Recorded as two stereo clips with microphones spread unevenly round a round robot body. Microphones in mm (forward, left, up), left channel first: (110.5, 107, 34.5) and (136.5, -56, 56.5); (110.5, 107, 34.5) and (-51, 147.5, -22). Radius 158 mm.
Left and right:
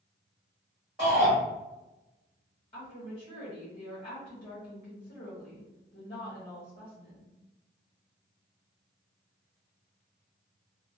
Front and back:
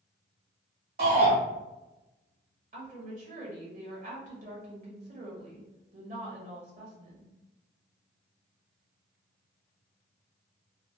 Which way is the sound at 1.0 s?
170° right.